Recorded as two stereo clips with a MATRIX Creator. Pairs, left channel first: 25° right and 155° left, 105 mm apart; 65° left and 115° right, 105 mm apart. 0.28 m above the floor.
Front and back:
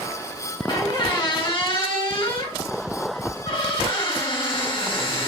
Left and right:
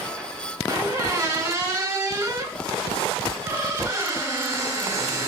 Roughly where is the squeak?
Ahead right.